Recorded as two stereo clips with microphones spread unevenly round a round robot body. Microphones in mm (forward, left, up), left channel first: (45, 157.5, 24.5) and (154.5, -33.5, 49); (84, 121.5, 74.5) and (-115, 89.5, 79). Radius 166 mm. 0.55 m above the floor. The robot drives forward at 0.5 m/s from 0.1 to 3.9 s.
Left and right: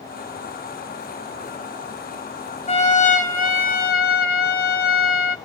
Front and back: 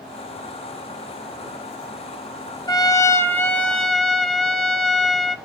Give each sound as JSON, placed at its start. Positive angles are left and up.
{"t": 2.7, "sound": "a trumpet", "azimuth_deg": 75, "distance_m": 1.9}